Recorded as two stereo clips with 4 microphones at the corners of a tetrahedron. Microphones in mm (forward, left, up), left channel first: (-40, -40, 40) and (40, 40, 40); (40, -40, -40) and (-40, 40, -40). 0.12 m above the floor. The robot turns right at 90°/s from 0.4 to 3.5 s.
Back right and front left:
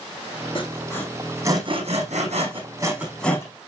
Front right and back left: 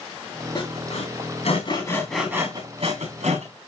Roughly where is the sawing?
Right.